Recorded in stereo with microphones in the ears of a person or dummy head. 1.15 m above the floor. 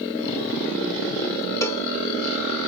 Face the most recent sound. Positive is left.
turn(degrees=15)  # may be behind; listen again after turning